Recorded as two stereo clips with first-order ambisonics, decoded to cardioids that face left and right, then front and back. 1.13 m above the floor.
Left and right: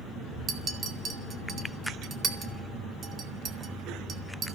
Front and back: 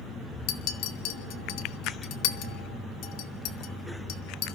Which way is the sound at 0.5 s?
25° right.